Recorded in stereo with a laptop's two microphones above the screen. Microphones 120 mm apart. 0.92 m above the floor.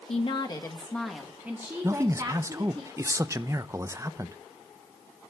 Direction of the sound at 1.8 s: 25° right (ahead or behind).